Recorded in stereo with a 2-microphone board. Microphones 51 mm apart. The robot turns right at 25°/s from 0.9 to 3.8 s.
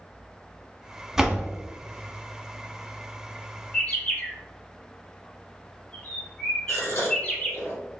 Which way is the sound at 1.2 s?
10° right (ahead or behind).